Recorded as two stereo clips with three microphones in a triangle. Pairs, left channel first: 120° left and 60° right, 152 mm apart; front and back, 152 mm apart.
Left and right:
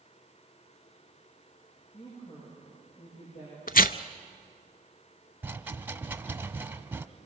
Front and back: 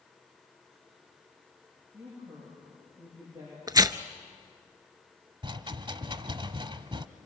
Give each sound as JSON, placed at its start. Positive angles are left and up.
{"t": 1.9, "sound": "a woman speaking", "azimuth_deg": 110, "distance_m": 9.5}
{"t": 3.7, "sound": "tearing paper", "azimuth_deg": 120, "distance_m": 0.5}
{"t": 5.4, "sound": "a rattle", "azimuth_deg": -135, "distance_m": 0.8}